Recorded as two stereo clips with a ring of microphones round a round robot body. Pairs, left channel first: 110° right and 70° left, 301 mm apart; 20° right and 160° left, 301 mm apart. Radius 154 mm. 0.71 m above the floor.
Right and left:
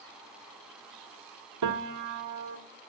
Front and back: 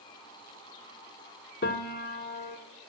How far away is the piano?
About 1.1 m.